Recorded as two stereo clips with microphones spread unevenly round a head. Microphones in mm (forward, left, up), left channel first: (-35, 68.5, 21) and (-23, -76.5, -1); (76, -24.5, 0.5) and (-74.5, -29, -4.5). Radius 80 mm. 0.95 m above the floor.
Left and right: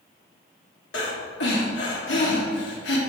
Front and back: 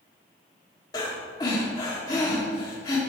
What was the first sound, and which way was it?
Breathing, 70° left.